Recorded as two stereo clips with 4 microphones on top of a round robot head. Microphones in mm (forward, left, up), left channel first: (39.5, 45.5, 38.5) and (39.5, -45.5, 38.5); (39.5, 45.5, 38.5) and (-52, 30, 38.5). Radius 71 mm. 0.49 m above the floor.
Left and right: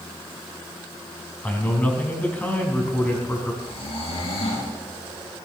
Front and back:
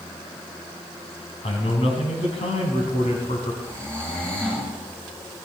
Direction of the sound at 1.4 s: 20° left.